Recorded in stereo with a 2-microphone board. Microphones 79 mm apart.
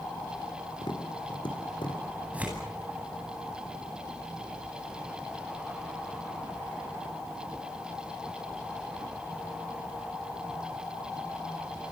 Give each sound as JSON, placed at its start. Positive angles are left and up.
{"t": 0.8, "sound": "tapping", "side_deg": 85, "distance_m": 4.0}
{"t": 2.3, "sound": "tearing paper", "side_deg": -15, "distance_m": 10.0}